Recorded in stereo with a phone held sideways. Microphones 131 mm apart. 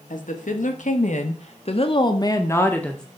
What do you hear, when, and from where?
0.1 s a woman speaking: 85° left, 2.5 m; by 3.0 s 5° left (ahead or behind), 1.7 m